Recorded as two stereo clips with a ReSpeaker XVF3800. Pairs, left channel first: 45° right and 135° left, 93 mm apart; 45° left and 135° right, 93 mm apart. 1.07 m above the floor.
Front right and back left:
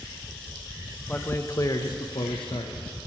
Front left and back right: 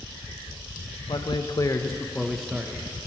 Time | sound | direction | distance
1.1 | a man speaking | 20° left | 1.0 m